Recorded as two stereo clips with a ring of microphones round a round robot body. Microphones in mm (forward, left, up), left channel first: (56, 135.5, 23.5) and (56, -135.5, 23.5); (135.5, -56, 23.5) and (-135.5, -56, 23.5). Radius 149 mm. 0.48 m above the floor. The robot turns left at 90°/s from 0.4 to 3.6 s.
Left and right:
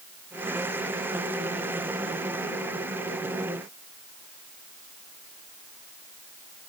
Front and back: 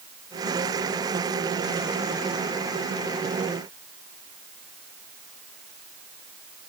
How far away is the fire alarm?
I don't hear a fire alarm.